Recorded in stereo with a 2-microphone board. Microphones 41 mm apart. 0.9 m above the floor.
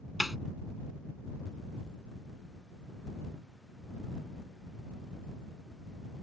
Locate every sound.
0.2 s a snare drum: centre (ahead or behind)